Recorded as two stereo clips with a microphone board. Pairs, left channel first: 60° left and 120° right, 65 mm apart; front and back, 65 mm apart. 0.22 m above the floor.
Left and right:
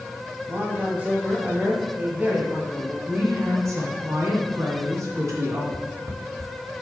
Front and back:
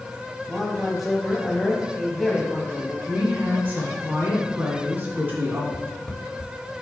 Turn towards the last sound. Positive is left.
turn(degrees=-85)